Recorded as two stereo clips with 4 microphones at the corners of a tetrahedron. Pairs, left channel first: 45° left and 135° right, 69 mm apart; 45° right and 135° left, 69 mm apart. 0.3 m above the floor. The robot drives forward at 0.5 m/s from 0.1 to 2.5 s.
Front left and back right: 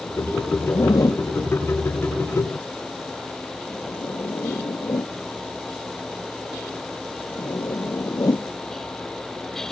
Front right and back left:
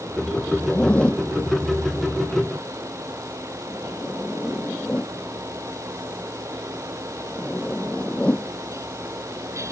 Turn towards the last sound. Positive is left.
turn(degrees=25)